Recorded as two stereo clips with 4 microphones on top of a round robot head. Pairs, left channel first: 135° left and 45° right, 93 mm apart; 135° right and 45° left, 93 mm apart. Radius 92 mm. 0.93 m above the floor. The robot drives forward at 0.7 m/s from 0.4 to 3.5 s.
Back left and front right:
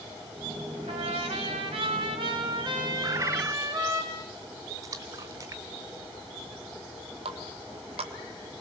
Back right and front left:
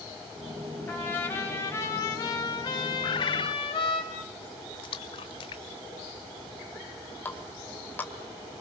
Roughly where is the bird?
Right.